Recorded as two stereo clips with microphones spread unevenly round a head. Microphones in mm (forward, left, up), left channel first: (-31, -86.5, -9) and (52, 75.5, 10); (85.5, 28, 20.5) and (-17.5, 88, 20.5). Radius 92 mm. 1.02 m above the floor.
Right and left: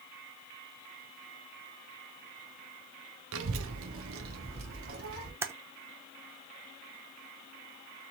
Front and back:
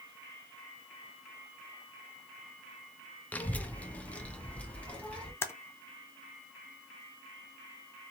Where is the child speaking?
50° left, 0.7 m.